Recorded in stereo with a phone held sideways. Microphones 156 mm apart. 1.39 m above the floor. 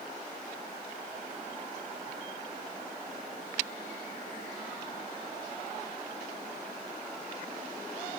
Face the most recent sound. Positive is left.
No sound to turn to.